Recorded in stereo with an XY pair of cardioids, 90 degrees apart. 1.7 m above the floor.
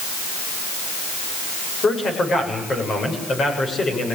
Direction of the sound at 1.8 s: 50° left.